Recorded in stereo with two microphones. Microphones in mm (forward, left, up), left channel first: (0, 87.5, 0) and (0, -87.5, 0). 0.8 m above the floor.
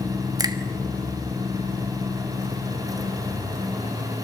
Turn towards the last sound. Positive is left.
turn(degrees=-20)  # may be behind; listen again after turning